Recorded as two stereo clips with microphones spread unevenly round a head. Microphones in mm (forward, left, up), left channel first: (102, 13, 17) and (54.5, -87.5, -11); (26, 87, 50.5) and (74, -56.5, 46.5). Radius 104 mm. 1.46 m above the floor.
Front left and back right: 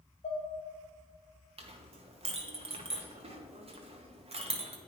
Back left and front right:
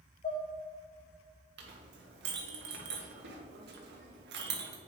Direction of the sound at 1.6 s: 80° right.